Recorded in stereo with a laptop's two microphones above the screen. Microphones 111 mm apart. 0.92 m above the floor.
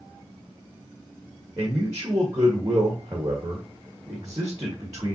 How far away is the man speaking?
About 1.0 m.